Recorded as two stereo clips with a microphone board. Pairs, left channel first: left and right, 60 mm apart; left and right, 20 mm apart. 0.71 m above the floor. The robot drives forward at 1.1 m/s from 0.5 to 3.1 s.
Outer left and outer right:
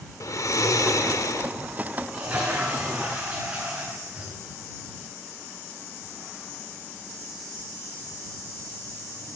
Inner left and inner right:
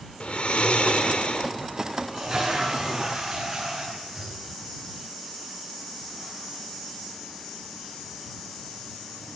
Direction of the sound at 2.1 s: 20° right (ahead or behind).